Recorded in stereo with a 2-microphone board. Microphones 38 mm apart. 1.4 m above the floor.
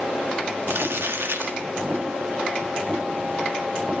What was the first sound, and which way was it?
Crumpling, 80° right.